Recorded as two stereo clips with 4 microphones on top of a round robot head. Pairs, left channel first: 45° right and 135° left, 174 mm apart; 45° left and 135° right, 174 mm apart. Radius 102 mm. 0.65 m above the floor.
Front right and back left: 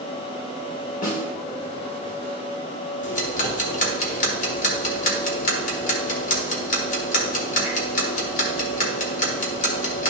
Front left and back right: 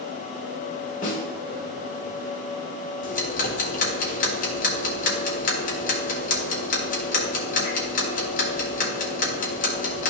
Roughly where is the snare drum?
Ahead.